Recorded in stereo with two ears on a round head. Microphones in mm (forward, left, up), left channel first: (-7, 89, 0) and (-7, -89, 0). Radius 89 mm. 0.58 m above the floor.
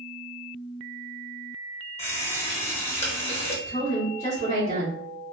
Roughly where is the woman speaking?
Left.